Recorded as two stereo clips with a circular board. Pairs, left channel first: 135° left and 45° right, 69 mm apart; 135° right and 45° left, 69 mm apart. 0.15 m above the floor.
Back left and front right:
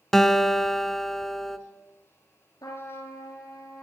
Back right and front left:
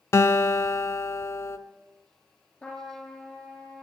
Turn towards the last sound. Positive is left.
turn(degrees=145)